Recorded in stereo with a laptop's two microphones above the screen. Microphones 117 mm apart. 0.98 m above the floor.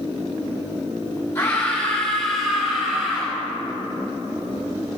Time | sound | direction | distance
1.4 | a scream | 25° left (ahead or behind) | 2.5 m